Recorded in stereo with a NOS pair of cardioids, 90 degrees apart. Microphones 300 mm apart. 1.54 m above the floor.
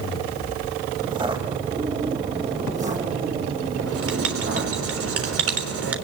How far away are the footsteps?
About 5 m.